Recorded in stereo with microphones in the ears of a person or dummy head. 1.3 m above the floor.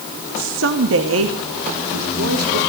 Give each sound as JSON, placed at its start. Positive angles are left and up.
{"t": 0.4, "sound": "a woman speaking", "side_deg": -70, "distance_m": 2.0}